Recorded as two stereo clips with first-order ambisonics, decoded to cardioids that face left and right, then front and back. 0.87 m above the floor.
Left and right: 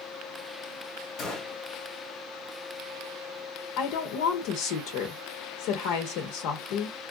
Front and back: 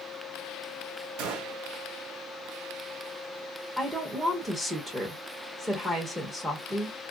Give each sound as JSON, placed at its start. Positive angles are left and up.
{"t": 1.2, "sound": "a gunshot", "azimuth_deg": 150, "distance_m": 0.9}
{"t": 3.8, "sound": "a woman speaking", "azimuth_deg": 95, "distance_m": 0.8}